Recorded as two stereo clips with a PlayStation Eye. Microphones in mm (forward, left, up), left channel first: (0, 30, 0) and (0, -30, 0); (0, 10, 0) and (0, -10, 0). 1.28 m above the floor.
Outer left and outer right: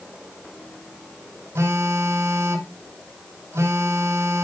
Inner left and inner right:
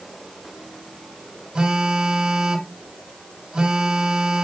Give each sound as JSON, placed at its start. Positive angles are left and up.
{"t": 1.6, "sound": "a phone buzzing", "side_deg": -50, "distance_m": 2.5}